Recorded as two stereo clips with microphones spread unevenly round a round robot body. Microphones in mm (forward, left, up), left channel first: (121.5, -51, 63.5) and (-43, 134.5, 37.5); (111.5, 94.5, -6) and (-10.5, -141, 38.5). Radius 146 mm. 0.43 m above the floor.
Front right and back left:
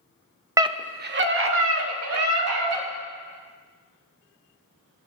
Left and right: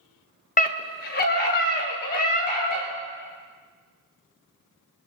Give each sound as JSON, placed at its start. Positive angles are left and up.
{"t": 0.6, "sound": "a scream", "azimuth_deg": 70, "distance_m": 1.1}